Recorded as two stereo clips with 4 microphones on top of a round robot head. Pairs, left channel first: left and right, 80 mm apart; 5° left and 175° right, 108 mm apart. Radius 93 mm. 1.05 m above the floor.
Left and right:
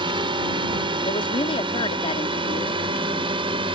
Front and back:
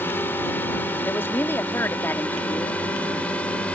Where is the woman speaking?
75° left.